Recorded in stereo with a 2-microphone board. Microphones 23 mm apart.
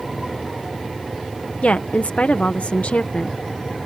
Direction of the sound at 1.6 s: 75° left (ahead or behind).